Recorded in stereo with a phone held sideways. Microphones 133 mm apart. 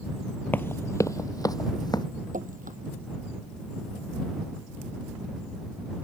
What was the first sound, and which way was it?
Running footsteps, 15° left (ahead or behind).